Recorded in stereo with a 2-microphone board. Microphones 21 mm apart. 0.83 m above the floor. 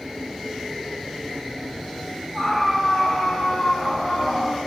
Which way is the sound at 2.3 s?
10° right (ahead or behind).